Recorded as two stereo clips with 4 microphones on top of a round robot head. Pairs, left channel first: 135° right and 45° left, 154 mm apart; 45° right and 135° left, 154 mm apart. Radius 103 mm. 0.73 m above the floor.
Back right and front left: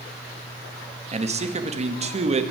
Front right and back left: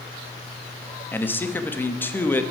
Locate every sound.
1.1 s a man speaking: 25° left, 1.4 m